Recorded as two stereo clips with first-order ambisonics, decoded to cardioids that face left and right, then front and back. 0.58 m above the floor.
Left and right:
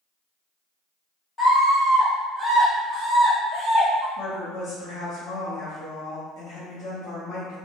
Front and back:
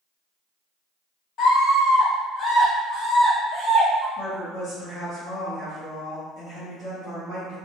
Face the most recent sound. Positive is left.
turn(degrees=85)